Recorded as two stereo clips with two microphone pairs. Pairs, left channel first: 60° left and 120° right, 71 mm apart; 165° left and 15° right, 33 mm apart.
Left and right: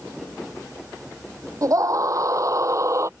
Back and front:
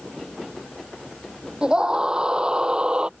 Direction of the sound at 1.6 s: 80° right.